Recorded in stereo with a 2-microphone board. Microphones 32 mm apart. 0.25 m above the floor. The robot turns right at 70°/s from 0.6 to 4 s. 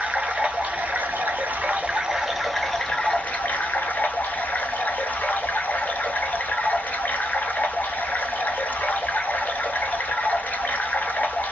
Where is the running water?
135° right, 0.8 m; by 11.5 s 105° left, 0.8 m.